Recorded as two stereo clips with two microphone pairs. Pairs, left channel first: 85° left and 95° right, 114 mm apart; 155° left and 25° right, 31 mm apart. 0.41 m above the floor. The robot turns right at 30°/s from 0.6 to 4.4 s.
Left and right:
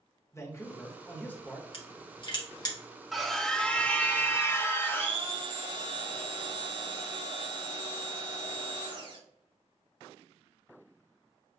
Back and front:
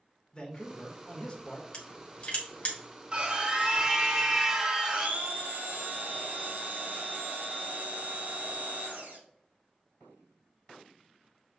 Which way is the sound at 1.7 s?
105° left.